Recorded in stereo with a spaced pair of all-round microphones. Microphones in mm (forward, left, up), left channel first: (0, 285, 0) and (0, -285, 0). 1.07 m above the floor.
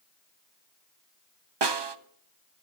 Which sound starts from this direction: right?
A snare drum, at 1.6 s.